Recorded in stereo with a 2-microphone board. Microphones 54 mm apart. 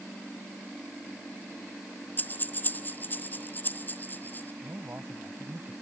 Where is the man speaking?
45° right (ahead or behind).